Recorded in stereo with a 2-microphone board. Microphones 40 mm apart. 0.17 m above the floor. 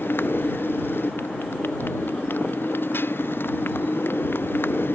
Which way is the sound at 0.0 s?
60° left (ahead or behind).